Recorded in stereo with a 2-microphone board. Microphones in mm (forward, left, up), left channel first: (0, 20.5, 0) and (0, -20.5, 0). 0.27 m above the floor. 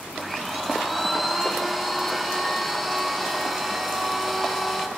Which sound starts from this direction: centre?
A blender, at 0.1 s.